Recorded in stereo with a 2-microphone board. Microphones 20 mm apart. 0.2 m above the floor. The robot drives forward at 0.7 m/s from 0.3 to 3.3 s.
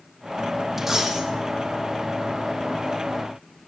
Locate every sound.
0.8 s a dropped coin: 15° right (ahead or behind), 3 m